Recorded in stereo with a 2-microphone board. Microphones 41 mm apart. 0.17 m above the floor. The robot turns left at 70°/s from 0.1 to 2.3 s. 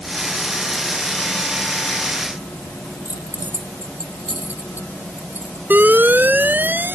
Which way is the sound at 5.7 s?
50° right (ahead or behind).